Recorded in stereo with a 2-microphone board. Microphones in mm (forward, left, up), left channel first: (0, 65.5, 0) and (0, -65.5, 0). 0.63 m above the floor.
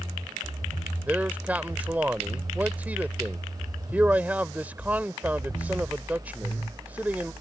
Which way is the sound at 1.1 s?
15° right (ahead or behind).